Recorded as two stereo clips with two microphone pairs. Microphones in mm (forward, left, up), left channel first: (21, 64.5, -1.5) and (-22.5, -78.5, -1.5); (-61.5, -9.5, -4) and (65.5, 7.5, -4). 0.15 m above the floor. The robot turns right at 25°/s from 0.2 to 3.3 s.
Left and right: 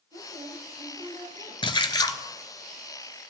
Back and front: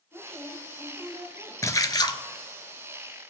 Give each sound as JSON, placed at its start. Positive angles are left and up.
{"t": 0.1, "sound": "a woman speaking", "azimuth_deg": -115, "distance_m": 6.5}
{"t": 1.6, "sound": "a splash", "azimuth_deg": 125, "distance_m": 0.6}